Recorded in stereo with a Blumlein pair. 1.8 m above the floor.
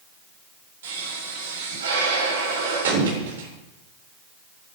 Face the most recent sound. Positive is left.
turn(degrees=-60)